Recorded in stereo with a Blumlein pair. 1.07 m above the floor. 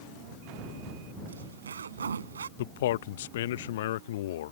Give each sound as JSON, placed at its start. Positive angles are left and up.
{"t": 1.3, "sound": "a zipper", "azimuth_deg": -70}
{"t": 2.6, "sound": "a man speaking", "azimuth_deg": 55}